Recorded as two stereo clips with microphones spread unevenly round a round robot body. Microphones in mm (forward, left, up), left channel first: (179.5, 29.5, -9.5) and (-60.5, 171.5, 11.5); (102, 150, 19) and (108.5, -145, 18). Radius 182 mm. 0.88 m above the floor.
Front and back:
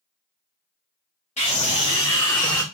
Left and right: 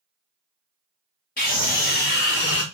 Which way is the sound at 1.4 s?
30° left.